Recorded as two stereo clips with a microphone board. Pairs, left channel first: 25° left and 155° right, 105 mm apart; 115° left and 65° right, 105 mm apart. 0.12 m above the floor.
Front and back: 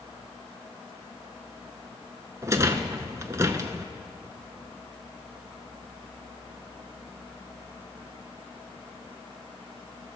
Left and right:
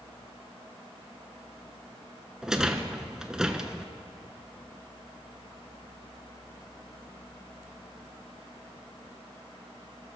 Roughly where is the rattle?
Behind right.